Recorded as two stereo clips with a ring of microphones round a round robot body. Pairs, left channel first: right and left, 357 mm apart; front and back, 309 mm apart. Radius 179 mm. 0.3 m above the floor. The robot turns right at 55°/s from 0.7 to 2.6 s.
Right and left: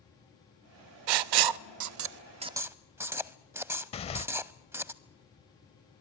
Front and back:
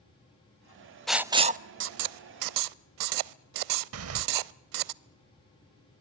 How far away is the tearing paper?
About 0.7 m.